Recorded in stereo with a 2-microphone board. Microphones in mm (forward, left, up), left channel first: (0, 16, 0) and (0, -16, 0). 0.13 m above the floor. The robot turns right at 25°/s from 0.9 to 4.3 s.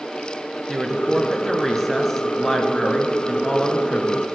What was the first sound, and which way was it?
A woman speaking, 15° right.